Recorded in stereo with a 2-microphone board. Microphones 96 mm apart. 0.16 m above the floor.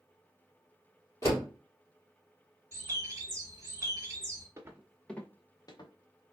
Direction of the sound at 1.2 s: 40° left (ahead or behind).